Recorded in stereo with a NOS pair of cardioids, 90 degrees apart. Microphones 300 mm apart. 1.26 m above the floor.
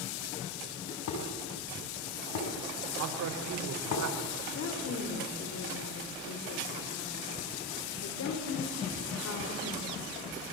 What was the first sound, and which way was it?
Dishes clattering, 65° left.